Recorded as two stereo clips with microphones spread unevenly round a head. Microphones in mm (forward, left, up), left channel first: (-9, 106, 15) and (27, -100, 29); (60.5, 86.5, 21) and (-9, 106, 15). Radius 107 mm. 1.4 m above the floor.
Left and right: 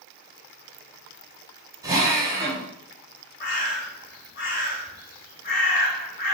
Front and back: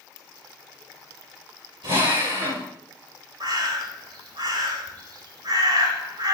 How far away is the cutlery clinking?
I don't hear cutlery clinking.